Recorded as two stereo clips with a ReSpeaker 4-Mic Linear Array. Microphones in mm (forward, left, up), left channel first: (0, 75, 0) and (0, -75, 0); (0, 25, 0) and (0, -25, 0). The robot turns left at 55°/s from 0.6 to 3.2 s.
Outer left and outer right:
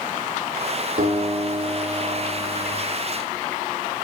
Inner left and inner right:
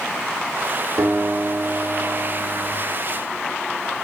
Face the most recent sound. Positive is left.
turn(degrees=175)